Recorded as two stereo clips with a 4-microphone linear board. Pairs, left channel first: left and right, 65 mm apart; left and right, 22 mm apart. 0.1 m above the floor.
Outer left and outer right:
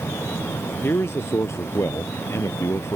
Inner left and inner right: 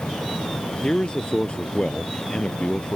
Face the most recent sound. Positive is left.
turn(degrees=45)  # may be behind; listen again after turning